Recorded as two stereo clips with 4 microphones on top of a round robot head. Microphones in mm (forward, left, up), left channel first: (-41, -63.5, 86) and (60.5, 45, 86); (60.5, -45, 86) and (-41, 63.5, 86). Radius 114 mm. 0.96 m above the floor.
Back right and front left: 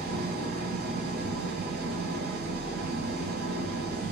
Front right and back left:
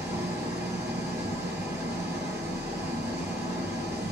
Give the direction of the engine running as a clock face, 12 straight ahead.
10 o'clock.